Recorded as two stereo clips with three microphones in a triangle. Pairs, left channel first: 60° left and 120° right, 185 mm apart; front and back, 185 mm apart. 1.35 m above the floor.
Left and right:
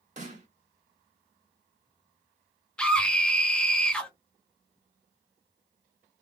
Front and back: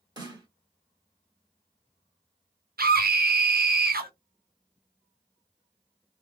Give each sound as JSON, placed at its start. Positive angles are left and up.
{"t": 0.2, "sound": "a snare drum", "azimuth_deg": -125, "distance_m": 1.1}
{"t": 2.8, "sound": "a scream", "azimuth_deg": 145, "distance_m": 0.5}